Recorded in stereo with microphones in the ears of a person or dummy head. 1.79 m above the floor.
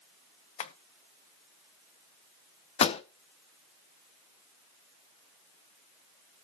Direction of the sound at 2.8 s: 35° left (ahead or behind).